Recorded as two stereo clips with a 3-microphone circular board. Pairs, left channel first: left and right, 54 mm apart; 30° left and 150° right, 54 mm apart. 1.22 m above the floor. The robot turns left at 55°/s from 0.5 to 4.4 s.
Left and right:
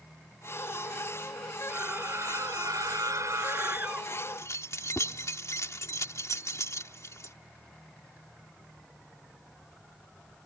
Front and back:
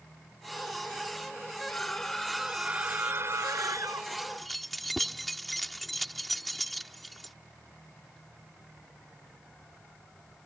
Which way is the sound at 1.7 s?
30° right.